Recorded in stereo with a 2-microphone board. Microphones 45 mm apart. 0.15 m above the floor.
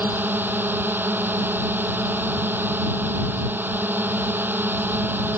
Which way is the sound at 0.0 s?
45° right (ahead or behind).